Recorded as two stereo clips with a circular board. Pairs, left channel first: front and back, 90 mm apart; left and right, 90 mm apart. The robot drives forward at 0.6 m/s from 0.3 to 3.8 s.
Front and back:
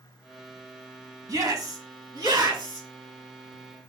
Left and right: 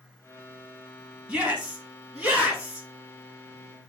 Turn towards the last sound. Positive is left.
turn(degrees=-175)